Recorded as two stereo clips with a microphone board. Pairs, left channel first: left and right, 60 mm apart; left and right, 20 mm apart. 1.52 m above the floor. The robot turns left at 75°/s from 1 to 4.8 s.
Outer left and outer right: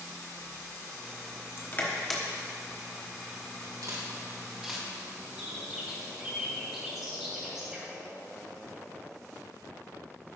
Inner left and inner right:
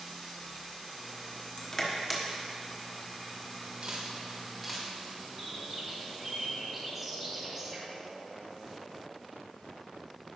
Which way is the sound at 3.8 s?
70° right (ahead or behind).